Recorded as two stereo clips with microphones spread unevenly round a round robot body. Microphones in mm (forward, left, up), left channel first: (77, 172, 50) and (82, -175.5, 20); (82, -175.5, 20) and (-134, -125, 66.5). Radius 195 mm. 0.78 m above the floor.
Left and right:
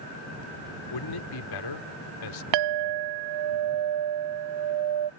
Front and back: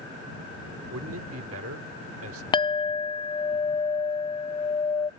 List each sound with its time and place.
0.9 s a man speaking: 125° left
2.5 s a clink: 80° right